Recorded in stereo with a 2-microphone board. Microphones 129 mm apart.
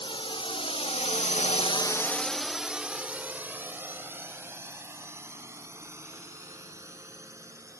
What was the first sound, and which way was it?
A drone, 40° left (ahead or behind).